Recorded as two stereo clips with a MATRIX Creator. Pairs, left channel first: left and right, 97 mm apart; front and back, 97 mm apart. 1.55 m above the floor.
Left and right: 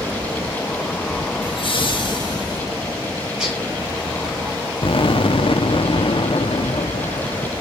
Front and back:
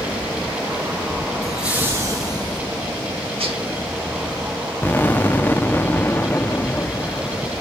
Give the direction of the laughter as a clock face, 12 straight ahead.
9 o'clock.